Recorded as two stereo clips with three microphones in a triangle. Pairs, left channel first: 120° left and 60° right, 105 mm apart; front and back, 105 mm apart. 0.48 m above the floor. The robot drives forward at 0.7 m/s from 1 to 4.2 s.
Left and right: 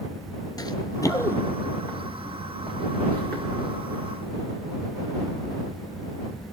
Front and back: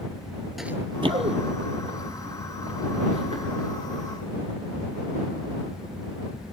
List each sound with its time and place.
0.6 s running footsteps: 90° left, 0.5 m; by 3.4 s 165° right, 5.5 m